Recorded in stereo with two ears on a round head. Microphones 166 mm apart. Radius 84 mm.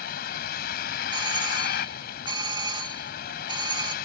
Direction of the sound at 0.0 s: 55° left (ahead or behind).